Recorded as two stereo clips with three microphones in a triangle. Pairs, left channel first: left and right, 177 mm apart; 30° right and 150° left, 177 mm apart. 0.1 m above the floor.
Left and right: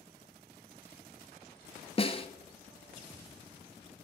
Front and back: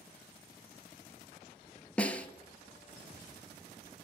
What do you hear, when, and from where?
2.0 s a snare drum: 50° left, 1.1 m